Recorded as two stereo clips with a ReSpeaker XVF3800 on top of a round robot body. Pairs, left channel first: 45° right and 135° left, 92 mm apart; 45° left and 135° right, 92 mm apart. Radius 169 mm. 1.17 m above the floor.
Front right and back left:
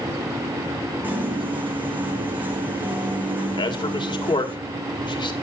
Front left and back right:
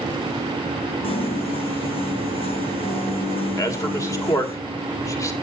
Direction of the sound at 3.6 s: 10° right.